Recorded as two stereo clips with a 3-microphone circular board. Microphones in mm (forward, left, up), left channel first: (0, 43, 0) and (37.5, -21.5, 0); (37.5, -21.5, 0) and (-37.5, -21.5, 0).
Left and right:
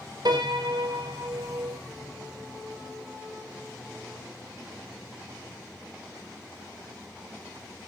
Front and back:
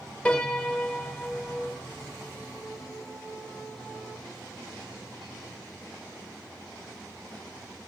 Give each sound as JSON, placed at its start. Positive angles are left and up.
{"t": 0.2, "sound": "a piano", "azimuth_deg": -75, "distance_m": 3.5}